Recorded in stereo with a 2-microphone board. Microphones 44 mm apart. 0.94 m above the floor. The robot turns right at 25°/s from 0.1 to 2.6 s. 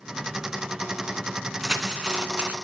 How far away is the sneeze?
No sneeze in this recording.